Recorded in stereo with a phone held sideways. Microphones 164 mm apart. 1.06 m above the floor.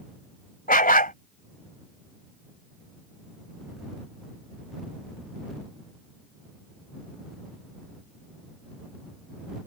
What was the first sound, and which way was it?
A dog barking, 60° left (ahead or behind).